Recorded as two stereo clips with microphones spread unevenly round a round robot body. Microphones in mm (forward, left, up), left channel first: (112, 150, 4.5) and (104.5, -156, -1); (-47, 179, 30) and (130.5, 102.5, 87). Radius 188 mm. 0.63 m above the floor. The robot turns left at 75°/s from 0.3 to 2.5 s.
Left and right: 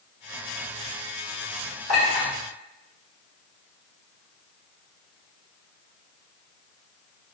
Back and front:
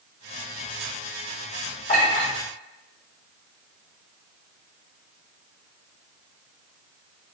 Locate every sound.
1.9 s a clink: 155° right, 1.8 m; by 2.3 s 175° left, 1.8 m